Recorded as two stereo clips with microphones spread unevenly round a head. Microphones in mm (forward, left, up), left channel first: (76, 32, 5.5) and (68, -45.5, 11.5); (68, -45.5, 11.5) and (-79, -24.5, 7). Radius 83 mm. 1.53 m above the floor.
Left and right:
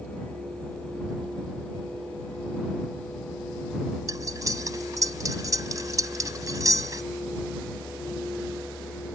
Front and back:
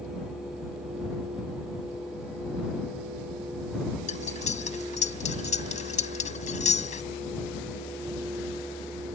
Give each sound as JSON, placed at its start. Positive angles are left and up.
{"t": 4.1, "sound": "cutlery clinking", "azimuth_deg": -50}